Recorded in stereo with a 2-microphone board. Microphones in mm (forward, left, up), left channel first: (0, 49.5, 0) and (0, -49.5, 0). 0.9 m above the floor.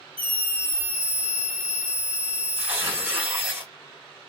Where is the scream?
65° right (ahead or behind), 1.2 m.